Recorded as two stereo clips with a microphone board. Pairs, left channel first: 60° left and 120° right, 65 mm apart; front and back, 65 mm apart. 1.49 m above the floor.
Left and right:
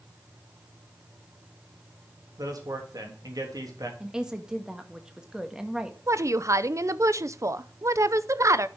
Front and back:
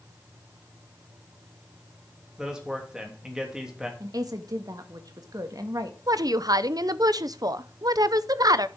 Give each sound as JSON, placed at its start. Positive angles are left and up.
{"t": 2.4, "sound": "a man speaking", "azimuth_deg": -100, "distance_m": 3.0}
{"t": 4.0, "sound": "a woman speaking", "azimuth_deg": 160, "distance_m": 1.6}
{"t": 6.1, "sound": "a woman speaking", "azimuth_deg": -160, "distance_m": 0.6}